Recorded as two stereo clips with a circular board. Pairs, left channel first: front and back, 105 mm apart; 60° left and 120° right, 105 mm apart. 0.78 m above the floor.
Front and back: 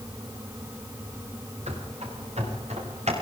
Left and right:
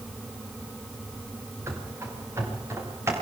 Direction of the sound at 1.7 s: 175° left.